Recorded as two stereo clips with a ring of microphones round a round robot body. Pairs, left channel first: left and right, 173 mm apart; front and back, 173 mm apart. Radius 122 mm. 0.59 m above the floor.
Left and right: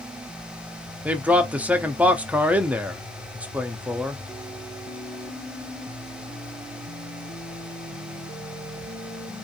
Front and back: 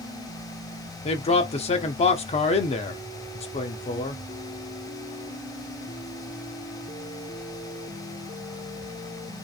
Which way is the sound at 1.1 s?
10° right.